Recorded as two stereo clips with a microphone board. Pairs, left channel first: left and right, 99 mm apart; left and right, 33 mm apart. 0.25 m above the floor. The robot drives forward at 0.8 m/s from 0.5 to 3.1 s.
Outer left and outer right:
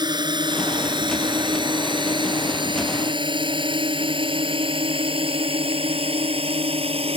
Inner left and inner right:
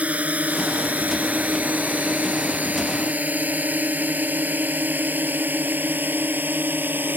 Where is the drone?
45° right (ahead or behind); by 7.2 s 70° right (ahead or behind).